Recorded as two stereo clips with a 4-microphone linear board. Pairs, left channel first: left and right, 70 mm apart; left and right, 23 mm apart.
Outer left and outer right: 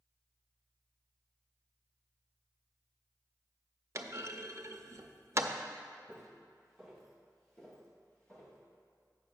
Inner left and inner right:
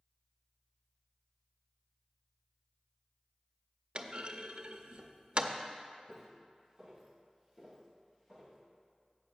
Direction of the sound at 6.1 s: 10° right (ahead or behind).